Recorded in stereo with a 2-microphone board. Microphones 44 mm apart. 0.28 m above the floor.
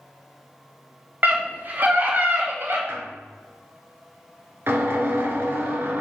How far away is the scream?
About 2.5 m.